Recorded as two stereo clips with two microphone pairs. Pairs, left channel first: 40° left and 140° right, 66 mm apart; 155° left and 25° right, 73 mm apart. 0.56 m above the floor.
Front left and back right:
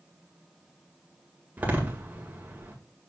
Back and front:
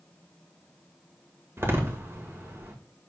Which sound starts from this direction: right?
A door slam, at 1.6 s.